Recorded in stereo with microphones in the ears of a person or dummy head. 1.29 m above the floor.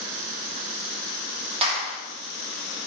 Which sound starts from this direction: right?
A clap, at 1.6 s.